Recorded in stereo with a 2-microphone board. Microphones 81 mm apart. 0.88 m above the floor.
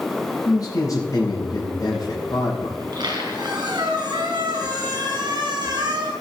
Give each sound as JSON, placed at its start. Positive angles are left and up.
{"t": 0.5, "sound": "a man speaking", "side_deg": 50, "distance_m": 4.5}
{"t": 2.8, "sound": "a squeak", "side_deg": -60, "distance_m": 4.5}